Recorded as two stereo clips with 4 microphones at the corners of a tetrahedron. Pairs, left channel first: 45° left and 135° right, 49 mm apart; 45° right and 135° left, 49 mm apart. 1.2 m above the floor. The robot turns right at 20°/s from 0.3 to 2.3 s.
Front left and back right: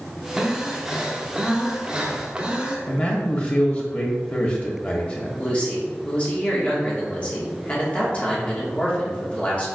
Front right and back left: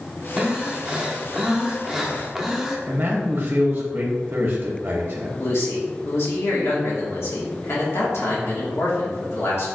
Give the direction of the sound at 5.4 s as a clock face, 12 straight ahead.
1 o'clock.